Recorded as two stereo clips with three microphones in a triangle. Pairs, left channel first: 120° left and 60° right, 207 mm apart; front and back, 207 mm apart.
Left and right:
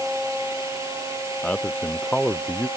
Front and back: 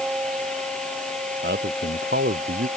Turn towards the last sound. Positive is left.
turn(degrees=-155)